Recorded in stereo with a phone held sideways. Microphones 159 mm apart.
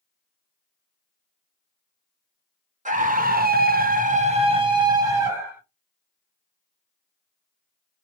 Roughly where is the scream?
Right.